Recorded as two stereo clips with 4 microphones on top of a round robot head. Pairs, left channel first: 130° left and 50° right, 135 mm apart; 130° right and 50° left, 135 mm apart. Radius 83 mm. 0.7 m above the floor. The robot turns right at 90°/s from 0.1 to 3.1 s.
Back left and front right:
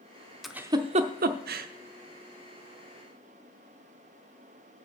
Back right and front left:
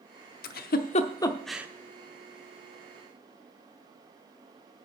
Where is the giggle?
140° right, 0.7 m; by 1.7 s 25° right, 0.7 m.